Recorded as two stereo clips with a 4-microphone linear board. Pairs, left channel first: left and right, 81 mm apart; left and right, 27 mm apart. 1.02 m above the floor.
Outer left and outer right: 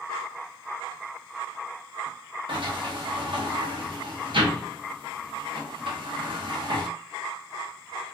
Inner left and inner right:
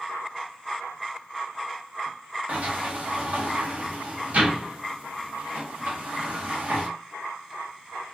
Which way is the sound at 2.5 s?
75° right (ahead or behind).